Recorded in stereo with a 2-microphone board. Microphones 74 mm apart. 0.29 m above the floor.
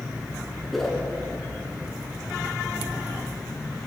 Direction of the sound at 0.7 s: Centre (ahead or behind).